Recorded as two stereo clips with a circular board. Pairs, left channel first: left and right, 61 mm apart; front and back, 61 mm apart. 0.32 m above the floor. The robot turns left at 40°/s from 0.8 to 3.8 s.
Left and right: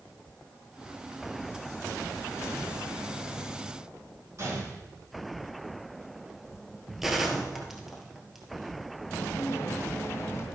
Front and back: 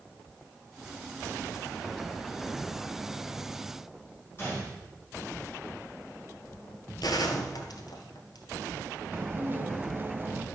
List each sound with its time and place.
4.4 s a gunshot: 50° right, 7 m
7.0 s a gunshot: 5° right, 1.4 m
9.1 s dishes clattering: 130° left, 1.3 m